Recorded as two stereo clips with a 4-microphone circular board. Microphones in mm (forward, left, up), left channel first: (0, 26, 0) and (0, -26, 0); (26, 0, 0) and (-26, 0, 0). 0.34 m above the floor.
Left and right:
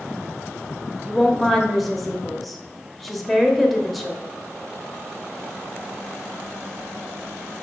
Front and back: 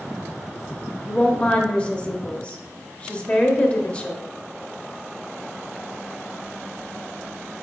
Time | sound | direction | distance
1.1 | a woman speaking | 5° left | 0.9 m